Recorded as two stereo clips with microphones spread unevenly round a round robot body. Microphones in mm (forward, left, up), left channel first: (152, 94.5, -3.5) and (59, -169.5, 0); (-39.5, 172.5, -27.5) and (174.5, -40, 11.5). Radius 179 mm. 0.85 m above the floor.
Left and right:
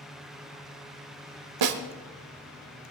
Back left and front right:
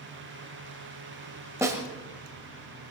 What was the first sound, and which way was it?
A snare drum, 125° right.